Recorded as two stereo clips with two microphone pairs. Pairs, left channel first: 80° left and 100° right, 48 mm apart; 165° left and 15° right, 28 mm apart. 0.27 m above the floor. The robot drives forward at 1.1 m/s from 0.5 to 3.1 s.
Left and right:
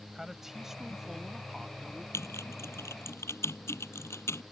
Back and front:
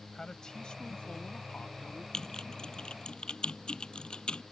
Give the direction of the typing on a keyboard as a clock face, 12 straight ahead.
9 o'clock.